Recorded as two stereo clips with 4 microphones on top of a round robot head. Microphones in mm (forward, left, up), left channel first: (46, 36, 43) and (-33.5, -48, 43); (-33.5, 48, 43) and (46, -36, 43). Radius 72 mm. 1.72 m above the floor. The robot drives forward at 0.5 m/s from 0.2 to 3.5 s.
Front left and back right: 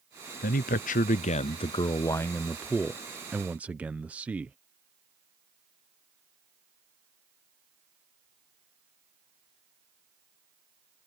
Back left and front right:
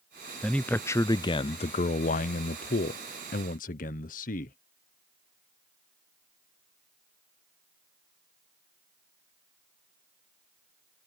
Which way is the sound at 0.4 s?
50° left.